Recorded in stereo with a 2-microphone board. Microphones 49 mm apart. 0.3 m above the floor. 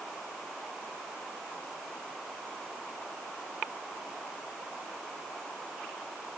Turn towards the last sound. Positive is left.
No sound to turn to.